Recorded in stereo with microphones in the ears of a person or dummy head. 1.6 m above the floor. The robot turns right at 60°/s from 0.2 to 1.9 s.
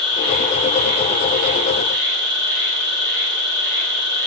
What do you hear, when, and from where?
0.0 s an insect: 160° right, 1.7 m; by 4.3 s 60° right, 1.7 m